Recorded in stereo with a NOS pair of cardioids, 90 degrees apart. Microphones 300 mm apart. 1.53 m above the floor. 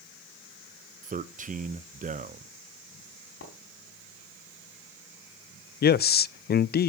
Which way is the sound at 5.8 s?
35° left.